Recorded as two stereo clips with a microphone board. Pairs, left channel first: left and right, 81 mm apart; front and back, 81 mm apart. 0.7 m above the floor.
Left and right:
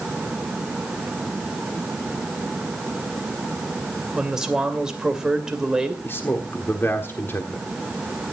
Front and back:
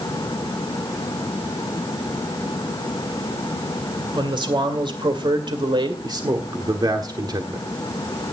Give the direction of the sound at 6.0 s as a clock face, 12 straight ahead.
7 o'clock.